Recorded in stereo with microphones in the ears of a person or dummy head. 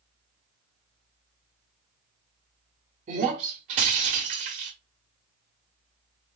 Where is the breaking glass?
25° right (ahead or behind), 1.4 m.